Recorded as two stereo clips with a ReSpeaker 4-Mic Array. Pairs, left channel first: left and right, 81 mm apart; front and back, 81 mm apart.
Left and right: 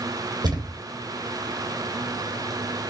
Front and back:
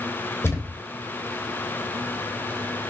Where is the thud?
60° right, 1.5 m.